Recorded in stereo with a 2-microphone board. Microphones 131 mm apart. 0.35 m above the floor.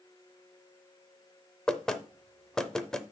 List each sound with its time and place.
1.7 s knocking: 5° left (ahead or behind), 0.7 m